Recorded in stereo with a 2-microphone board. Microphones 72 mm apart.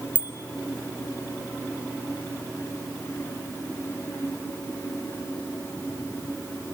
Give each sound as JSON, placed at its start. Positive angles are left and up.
{"t": 0.1, "sound": "a bicycle bell", "side_deg": -80, "distance_m": 4.5}